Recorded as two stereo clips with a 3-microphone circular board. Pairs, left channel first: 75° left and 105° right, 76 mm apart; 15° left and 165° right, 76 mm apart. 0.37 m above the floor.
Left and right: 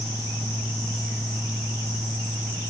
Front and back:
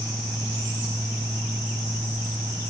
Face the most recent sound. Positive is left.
No sound to turn to.